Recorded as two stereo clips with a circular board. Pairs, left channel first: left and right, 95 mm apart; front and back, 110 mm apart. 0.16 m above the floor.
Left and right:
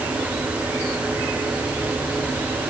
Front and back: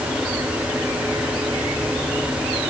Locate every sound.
Only background noise.